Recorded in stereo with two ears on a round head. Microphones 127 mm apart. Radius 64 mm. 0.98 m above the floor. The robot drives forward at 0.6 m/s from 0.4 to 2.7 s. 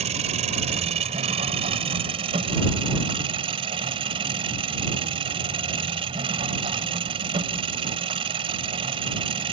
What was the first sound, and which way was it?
An engine running, 55° right (ahead or behind).